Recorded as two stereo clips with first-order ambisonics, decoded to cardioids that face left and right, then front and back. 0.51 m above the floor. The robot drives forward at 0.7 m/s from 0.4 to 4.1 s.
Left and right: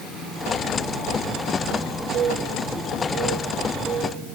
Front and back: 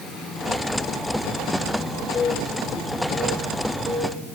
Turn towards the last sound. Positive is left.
turn(degrees=-115)